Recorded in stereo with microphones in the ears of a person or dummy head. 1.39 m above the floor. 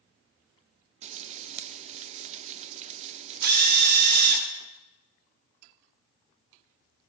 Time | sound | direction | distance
1.0 | frying | 40° right (ahead or behind) | 0.5 m
3.4 | a drill | 60° right (ahead or behind) | 2.5 m